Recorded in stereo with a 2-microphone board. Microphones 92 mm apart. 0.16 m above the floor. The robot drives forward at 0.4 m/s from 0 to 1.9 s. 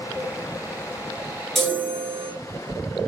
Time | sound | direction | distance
1.6 | a chime | 5° left (ahead or behind) | 1.9 m